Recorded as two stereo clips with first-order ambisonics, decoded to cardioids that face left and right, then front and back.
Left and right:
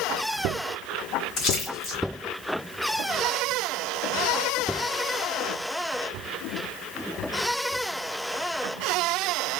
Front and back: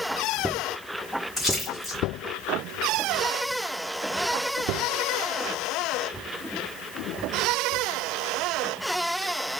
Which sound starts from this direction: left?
A splash, at 1.4 s.